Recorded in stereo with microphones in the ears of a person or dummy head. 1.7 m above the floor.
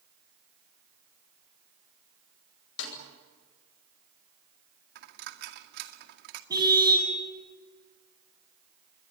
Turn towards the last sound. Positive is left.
turn(degrees=-15)  # may be behind; listen again after turning